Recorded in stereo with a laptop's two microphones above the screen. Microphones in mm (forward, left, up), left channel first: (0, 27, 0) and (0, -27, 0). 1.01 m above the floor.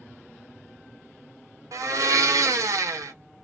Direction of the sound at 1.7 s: 75° right (ahead or behind).